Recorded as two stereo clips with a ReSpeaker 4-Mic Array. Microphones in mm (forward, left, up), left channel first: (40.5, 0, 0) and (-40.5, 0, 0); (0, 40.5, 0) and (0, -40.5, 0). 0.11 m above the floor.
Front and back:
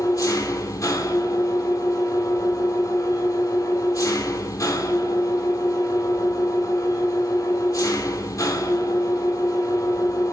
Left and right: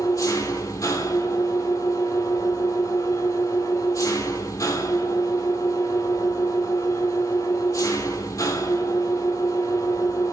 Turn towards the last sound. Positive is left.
turn(degrees=45)